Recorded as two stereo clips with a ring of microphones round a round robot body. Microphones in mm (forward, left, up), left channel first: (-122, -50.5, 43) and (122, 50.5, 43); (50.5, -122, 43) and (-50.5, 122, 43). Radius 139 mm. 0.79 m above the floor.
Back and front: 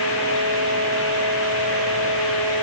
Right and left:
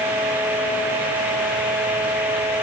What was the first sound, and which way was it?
Only background noise.